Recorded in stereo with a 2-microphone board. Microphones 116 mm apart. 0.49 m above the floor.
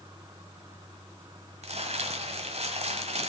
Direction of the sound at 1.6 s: 75° right (ahead or behind).